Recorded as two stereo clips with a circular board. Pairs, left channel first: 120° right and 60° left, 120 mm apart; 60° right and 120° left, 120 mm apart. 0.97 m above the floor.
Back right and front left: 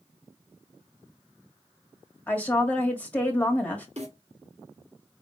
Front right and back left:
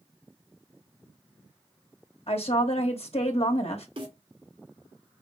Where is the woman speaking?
45° right, 1.4 m.